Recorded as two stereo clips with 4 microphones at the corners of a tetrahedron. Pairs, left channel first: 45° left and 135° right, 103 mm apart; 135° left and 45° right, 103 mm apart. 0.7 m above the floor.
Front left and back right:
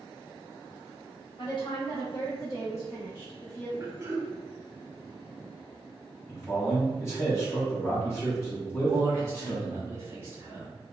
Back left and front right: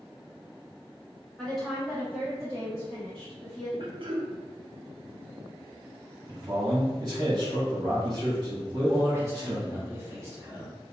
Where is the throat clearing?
75° right, 0.5 m.